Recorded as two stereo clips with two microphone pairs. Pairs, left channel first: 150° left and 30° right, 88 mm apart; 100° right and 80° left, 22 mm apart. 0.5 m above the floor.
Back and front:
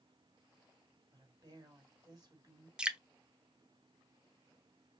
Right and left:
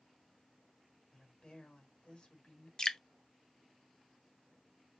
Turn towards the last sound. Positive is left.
turn(degrees=-110)